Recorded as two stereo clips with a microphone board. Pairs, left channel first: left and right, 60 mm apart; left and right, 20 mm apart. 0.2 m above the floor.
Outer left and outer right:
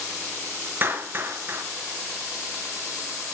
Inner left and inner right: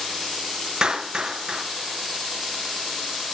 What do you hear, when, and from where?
0.8 s a clap: 35° right (ahead or behind), 3 m